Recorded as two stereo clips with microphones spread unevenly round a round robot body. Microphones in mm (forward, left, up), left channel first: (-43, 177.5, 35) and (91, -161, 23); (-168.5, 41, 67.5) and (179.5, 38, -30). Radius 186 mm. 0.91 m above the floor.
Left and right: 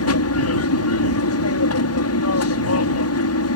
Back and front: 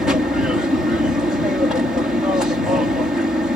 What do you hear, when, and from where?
0.0 s an aircraft: 75° left